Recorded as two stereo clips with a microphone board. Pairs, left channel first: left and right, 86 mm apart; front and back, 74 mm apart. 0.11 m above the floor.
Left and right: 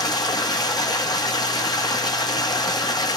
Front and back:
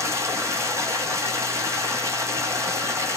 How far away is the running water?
About 1.0 m.